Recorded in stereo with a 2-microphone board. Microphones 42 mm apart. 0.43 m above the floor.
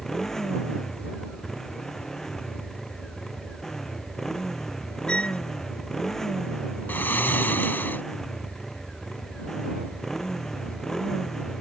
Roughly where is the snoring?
Left.